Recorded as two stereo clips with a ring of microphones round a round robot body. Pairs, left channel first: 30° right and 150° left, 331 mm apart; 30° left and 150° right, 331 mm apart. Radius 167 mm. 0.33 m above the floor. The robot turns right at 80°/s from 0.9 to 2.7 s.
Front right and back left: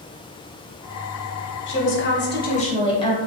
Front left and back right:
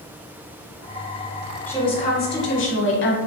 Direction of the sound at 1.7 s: 50° right.